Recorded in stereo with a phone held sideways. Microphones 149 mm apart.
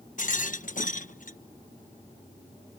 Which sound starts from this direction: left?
A rattle, at 0.2 s.